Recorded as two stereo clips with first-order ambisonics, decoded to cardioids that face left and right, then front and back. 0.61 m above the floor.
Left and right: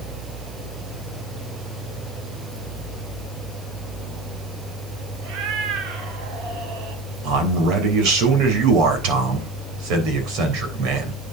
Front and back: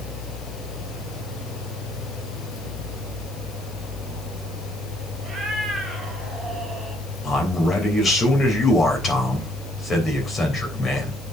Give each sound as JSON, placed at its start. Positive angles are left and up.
{"t": 5.2, "sound": "a cat meowing", "azimuth_deg": -100, "distance_m": 3.0}
{"t": 7.2, "sound": "a man speaking", "azimuth_deg": -70, "distance_m": 3.5}